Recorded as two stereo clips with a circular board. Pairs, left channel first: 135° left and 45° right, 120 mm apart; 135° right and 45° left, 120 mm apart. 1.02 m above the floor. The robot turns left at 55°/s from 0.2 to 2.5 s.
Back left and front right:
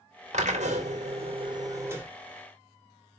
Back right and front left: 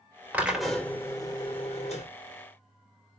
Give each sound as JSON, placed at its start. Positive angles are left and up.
{"t": 0.3, "sound": "a drill", "azimuth_deg": -30, "distance_m": 3.0}